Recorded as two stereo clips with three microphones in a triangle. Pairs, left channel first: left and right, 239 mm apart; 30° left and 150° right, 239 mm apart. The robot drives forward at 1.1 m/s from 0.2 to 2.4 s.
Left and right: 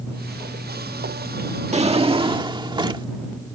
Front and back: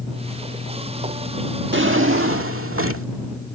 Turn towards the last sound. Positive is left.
turn(degrees=-160)